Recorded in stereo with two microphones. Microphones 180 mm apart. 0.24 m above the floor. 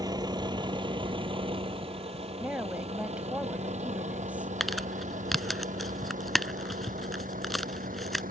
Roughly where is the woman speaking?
Centre.